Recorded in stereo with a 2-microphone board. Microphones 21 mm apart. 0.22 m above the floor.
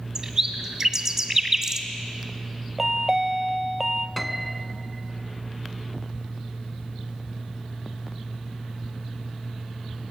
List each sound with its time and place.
0.1 s a bird: 25° right (ahead or behind), 1.9 m
2.8 s a chime: 20° right (ahead or behind), 0.9 m
4.2 s a piano: 10° left (ahead or behind), 1.1 m